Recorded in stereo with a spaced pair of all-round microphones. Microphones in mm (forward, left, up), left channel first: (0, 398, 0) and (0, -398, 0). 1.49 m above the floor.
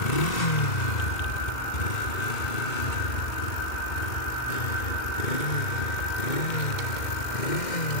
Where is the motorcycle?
50° left (ahead or behind); by 8.0 s 60° left (ahead or behind).